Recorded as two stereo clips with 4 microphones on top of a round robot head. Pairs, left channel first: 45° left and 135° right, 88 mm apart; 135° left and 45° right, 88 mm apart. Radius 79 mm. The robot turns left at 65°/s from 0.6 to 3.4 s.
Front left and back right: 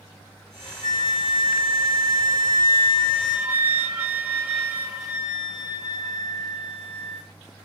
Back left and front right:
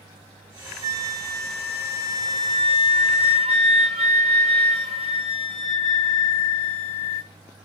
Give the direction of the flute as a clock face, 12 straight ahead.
8 o'clock.